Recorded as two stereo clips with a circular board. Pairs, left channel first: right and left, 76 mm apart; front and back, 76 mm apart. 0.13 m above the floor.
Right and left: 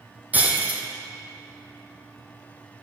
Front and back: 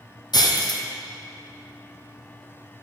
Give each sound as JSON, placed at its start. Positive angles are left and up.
{"t": 0.3, "sound": "breaking glass", "azimuth_deg": 25, "distance_m": 1.0}